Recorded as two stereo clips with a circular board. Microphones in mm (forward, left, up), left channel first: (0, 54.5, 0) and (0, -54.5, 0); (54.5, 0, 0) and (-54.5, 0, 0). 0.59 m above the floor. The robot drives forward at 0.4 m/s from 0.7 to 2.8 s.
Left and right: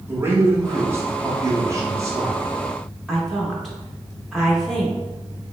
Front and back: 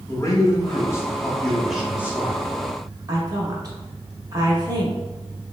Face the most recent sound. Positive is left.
turn(degrees=175)